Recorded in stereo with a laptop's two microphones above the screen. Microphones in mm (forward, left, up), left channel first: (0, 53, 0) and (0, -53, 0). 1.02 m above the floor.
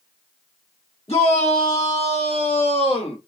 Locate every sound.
1.1 s a shout: 80° left, 3 m; by 3.2 s 70° left (ahead or behind), 1.8 m